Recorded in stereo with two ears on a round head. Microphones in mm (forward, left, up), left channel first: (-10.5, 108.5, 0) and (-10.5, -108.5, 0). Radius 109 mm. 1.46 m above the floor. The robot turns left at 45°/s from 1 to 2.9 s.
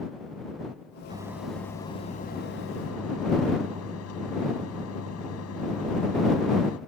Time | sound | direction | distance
1.1 | a microwave | 160° right | ?